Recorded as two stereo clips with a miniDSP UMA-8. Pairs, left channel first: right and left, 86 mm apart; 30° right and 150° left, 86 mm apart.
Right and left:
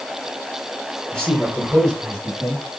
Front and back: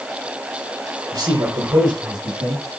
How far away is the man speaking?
About 5 m.